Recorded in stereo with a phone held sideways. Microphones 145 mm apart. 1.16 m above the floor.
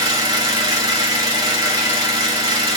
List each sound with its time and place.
0.0 s an engine running: 30° right (ahead or behind), 1.8 m